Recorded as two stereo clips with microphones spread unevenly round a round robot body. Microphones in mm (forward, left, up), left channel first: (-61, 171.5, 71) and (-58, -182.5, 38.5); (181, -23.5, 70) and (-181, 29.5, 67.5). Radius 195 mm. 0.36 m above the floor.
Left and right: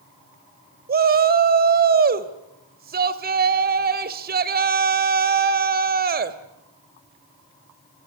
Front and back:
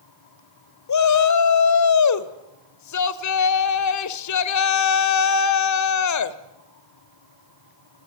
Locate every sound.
0.9 s a shout: 35° right, 1.6 m